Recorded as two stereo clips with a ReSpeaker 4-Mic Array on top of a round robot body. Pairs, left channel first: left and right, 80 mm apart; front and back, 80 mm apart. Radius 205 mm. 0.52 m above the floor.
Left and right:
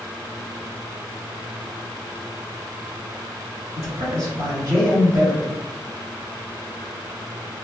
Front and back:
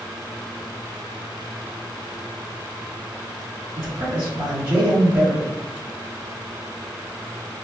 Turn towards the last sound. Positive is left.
turn(degrees=-135)